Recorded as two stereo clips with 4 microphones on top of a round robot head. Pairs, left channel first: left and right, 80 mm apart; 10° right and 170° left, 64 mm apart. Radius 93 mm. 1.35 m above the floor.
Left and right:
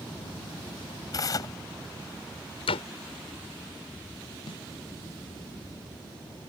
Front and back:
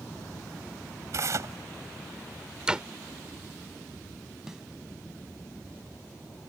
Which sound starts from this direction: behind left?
Tearing paper, at 1.1 s.